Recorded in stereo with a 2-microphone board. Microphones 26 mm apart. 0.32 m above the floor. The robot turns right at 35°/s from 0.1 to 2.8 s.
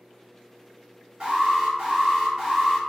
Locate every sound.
1.2 s an alarm: 55° right, 1.8 m; by 2.8 s straight ahead, 1.8 m